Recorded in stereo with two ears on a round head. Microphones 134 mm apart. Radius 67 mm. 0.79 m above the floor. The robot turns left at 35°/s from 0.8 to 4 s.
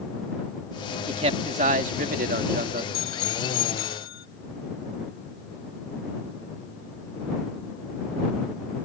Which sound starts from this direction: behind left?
A bicycle bell, at 2.9 s.